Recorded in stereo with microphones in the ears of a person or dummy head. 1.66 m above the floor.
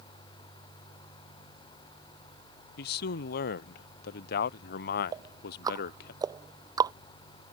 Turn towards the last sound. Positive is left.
turn(degrees=-20)  # may be behind; listen again after turning